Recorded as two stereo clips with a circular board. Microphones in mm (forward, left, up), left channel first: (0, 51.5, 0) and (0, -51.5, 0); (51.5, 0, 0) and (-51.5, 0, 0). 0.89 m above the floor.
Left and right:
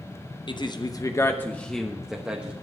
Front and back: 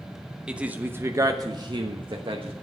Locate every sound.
0.5 s a man speaking: 100° left, 1.0 m; by 2.5 s 165° right, 1.2 m